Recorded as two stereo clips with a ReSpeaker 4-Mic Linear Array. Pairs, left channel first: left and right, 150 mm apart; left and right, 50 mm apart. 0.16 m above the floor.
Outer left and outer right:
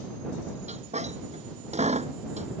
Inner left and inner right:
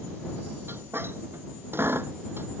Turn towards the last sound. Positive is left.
turn(degrees=-50)  # may be behind; listen again after turning